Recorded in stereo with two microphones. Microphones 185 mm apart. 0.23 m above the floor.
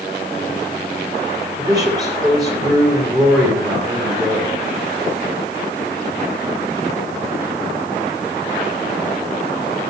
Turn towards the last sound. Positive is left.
turn(degrees=-20)  # may be behind; listen again after turning